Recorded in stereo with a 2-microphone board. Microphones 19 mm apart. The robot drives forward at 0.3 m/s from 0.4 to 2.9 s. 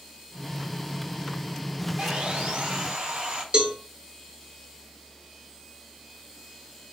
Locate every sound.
2.0 s sawing: 75° right (ahead or behind), 1.4 m; by 3.4 s 65° right (ahead or behind), 1.5 m
3.5 s a cowbell: 55° right (ahead or behind), 1.1 m